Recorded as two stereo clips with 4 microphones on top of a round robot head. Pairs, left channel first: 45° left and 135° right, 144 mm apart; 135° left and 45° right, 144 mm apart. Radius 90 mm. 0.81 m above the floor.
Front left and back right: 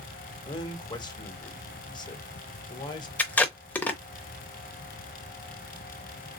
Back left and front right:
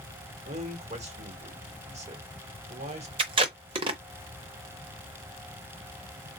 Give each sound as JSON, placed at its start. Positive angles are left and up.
{"t": 0.5, "sound": "a man speaking", "azimuth_deg": -10, "distance_m": 1.6}
{"t": 3.2, "sound": "tape being pulled", "azimuth_deg": -30, "distance_m": 0.6}